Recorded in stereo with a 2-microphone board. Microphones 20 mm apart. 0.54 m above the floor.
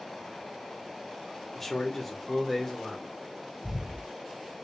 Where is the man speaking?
15° left (ahead or behind), 0.8 m; by 3.1 s 10° left (ahead or behind), 1.5 m.